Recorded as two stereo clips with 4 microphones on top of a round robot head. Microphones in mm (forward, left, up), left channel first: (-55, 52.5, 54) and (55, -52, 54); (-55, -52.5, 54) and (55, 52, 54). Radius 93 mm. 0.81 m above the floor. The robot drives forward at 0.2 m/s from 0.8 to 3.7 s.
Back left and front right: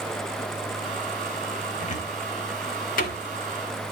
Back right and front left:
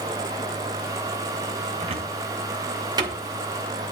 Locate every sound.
1.8 s a cupboard door: 95° left, 1.1 m; by 3.2 s 110° left, 1.2 m